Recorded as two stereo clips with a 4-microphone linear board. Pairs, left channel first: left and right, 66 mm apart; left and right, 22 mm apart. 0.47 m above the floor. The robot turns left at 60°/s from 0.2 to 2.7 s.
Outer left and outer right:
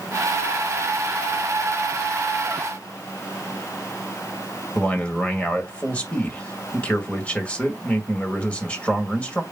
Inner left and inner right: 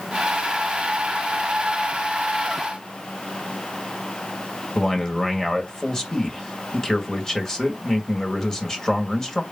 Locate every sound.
4.8 s a man speaking: 20° left (ahead or behind), 2.0 m